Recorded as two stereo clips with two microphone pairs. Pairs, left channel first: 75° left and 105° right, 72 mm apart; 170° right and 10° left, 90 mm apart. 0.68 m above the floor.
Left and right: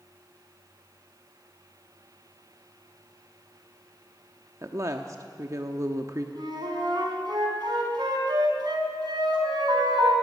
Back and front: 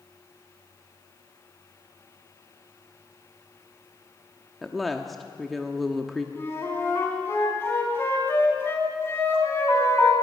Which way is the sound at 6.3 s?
105° right.